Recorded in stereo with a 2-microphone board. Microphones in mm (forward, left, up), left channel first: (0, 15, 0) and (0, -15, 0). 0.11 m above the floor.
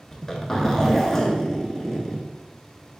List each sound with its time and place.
0.1 s a zipper: 10° left (ahead or behind), 0.7 m